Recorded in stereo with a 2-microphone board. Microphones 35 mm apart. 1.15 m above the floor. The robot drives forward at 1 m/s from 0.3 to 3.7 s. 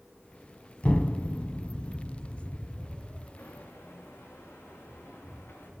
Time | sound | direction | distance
0.8 | an explosion | 35° left (ahead or behind) | 1.2 m
3.4 | footsteps | 80° left | 6.5 m